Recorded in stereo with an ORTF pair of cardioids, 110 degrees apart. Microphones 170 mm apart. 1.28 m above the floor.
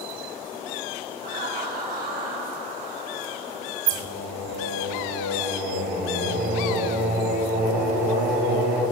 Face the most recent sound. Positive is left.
turn(degrees=-65)